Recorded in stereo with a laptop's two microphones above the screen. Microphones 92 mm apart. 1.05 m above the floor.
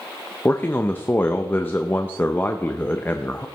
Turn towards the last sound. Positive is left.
turn(degrees=20)  # may be behind; listen again after turning